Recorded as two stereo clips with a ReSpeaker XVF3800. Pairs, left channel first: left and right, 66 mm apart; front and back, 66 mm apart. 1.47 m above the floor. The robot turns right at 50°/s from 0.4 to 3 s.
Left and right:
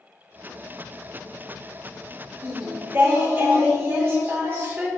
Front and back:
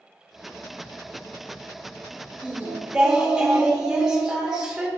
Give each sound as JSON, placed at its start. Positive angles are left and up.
{"t": 2.4, "sound": "singing", "azimuth_deg": -135, "distance_m": 1.0}